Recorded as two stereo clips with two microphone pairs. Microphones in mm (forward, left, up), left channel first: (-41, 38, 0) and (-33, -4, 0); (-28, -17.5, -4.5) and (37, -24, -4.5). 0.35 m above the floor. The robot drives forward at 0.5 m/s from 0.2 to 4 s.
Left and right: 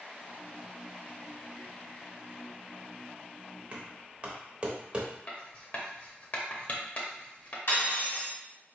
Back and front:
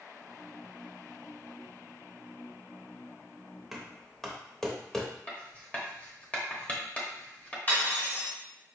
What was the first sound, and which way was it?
Knocking, 90° right.